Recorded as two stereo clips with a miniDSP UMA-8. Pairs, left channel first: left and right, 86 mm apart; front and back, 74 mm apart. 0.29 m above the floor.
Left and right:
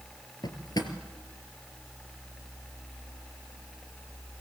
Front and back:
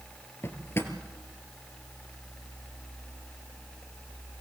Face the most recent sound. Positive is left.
turn(degrees=55)